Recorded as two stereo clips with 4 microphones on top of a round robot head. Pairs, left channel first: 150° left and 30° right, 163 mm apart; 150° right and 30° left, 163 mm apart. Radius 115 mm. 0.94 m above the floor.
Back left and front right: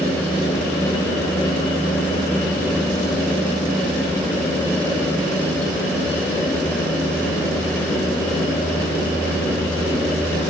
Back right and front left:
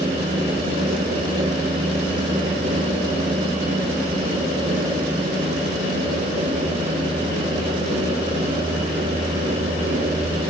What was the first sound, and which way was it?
Only background noise.